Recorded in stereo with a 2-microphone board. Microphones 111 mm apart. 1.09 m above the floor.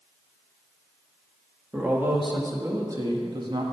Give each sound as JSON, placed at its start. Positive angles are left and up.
{"t": 1.7, "sound": "a man speaking", "side_deg": -15, "distance_m": 1.9}